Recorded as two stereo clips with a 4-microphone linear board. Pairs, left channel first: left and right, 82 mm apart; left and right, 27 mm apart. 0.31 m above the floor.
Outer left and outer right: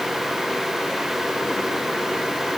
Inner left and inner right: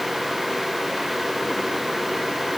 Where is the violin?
I don't hear a violin.